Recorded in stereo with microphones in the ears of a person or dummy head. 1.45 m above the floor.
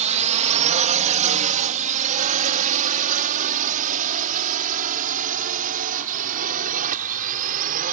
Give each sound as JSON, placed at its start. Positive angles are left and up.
{"t": 0.0, "sound": "a drone", "side_deg": -40}